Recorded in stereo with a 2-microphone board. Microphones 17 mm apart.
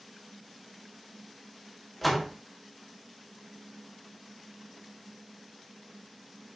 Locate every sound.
2.0 s a door slam: 5° left (ahead or behind), 1.7 m